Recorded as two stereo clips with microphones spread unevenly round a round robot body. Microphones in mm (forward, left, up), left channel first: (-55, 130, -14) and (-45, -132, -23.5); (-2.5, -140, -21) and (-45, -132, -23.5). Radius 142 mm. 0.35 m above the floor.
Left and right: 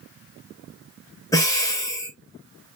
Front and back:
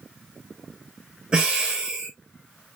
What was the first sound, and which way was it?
Breathing, 155° left.